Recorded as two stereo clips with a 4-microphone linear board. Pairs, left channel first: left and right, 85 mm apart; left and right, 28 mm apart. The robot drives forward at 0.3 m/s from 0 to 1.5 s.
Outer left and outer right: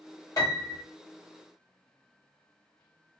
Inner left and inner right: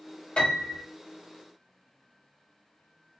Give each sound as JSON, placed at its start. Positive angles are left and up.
{"t": 0.4, "sound": "a piano", "side_deg": 40, "distance_m": 1.3}